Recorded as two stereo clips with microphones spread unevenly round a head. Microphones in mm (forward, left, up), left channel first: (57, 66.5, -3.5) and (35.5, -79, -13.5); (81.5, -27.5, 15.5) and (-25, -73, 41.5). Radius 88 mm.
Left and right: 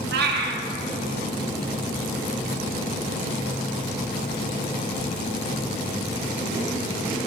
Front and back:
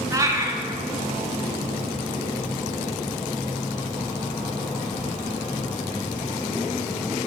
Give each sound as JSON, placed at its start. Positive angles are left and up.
{"t": 0.1, "sound": "a cat meowing", "azimuth_deg": -95, "distance_m": 0.8}